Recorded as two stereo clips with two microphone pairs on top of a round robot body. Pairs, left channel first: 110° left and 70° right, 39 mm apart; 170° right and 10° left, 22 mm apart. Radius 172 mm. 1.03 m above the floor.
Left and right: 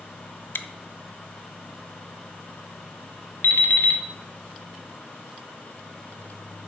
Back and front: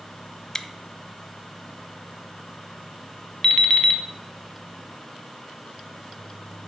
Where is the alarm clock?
130° left, 0.6 m.